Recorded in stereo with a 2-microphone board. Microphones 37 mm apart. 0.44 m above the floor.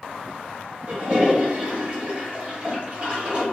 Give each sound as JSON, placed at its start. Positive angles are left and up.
{"t": 0.9, "sound": "a toilet flushing", "side_deg": -35, "distance_m": 1.0}